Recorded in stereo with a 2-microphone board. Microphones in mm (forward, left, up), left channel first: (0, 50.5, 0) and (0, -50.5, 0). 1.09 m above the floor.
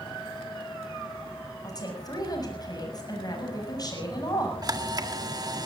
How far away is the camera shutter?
About 1.6 m.